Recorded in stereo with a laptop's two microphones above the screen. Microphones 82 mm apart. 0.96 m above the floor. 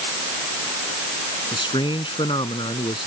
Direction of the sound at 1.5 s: 85° left.